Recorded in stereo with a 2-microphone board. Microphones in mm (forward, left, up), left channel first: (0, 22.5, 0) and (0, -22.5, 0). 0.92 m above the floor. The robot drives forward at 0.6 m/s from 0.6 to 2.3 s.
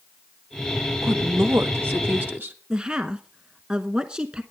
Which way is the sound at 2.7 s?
25° right (ahead or behind).